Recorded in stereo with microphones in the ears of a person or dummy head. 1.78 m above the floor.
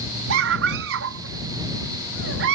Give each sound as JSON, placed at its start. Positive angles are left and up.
{"t": 0.3, "sound": "a scream", "side_deg": -80}